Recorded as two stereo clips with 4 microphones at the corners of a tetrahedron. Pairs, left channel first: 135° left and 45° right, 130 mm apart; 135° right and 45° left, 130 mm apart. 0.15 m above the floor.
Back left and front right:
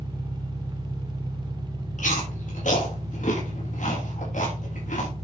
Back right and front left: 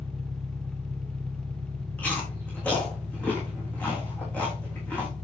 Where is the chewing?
145° left, 7 m.